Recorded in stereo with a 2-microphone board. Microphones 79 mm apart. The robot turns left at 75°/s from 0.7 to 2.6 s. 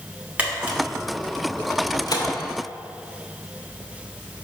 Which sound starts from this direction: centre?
A camera shutter, at 0.4 s.